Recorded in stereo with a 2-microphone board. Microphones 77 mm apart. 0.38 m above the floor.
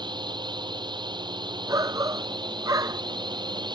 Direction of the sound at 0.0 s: 75° right (ahead or behind).